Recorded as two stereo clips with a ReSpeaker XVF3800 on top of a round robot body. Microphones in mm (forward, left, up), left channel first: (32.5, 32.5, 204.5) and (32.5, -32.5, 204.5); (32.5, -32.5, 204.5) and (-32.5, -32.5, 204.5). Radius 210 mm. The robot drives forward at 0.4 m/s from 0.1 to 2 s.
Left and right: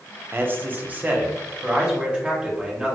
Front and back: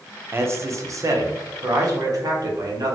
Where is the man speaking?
135° right, 0.8 m; by 3.0 s 160° right, 1.2 m.